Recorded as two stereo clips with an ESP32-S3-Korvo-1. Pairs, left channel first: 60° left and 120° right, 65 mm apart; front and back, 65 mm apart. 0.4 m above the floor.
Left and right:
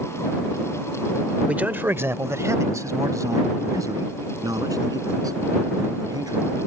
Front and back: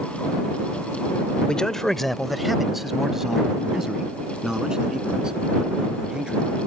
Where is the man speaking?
65° right; by 6.5 s 105° right.